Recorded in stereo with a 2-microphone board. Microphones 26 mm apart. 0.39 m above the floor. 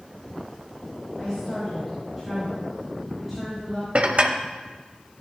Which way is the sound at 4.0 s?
55° right (ahead or behind).